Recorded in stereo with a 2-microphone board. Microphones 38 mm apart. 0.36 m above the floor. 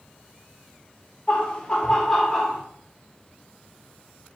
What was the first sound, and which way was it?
Laughter, 30° left (ahead or behind).